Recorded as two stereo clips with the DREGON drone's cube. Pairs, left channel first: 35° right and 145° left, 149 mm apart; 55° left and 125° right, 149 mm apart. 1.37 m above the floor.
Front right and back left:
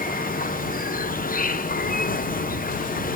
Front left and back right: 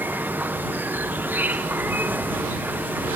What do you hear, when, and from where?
0.0 s an insect: 45° right